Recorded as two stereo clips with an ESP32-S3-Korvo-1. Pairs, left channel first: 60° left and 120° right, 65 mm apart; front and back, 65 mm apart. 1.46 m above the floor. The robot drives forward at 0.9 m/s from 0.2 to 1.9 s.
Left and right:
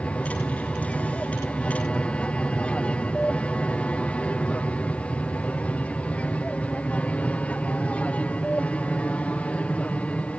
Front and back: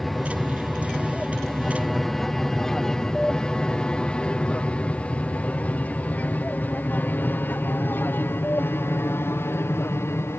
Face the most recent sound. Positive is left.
turn(degrees=0)